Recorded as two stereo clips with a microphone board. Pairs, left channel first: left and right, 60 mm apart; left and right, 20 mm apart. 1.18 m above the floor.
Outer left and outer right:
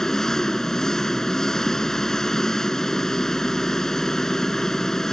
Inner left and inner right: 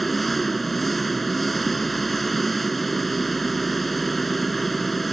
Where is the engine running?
10° left (ahead or behind).